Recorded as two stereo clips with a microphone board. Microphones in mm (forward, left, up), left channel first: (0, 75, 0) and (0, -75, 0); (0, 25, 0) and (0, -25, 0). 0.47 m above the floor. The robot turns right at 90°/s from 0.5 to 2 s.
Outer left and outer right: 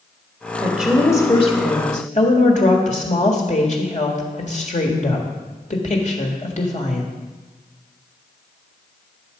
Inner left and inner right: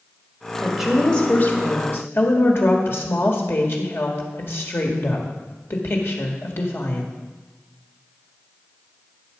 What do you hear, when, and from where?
0.6 s a woman speaking: 20° right, 1.7 m; by 7.1 s 105° left, 1.7 m